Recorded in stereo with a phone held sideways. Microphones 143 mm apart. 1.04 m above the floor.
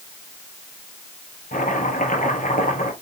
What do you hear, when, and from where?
1.5 s chopping: 70° left (ahead or behind), 3.5 m